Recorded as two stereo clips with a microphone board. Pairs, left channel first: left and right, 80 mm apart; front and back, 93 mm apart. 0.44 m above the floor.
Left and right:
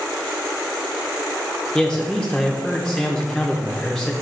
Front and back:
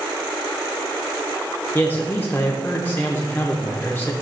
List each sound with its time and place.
1.8 s a man speaking: 25° left, 0.7 m